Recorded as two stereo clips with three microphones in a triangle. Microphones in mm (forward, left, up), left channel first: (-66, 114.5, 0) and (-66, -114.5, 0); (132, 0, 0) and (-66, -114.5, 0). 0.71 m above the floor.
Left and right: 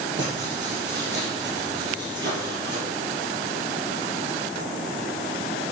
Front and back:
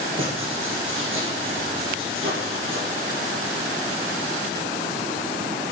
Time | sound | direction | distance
0.2 | writing | 125° right | 3.5 m